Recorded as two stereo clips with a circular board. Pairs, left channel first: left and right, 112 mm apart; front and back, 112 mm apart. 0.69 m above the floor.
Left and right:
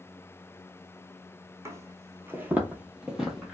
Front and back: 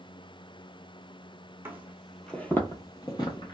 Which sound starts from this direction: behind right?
Footsteps, at 1.6 s.